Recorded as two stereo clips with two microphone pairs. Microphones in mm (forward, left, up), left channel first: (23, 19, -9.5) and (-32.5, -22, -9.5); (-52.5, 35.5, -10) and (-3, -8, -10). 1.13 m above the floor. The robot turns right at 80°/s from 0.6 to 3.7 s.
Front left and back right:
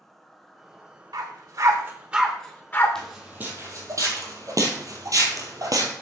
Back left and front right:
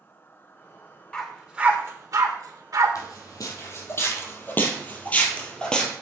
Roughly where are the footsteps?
Behind left.